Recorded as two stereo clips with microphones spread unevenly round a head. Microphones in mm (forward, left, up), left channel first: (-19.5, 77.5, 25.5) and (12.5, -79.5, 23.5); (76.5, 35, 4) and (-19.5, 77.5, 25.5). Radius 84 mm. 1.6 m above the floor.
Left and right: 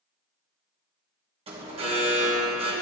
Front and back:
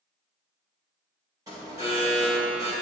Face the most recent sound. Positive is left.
turn(degrees=-135)